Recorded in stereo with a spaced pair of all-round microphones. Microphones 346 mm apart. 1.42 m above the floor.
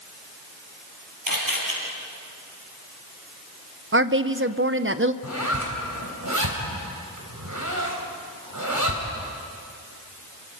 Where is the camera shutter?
75° right (ahead or behind), 5 m.